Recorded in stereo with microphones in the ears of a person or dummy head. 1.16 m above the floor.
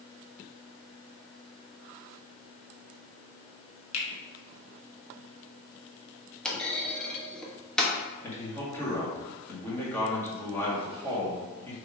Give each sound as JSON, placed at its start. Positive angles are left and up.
{"t": 3.9, "sound": "a finger snap", "side_deg": 75, "distance_m": 1.3}
{"t": 6.5, "sound": "a clunk", "side_deg": 5, "distance_m": 0.8}
{"t": 8.2, "sound": "a man speaking", "side_deg": 10, "distance_m": 2.0}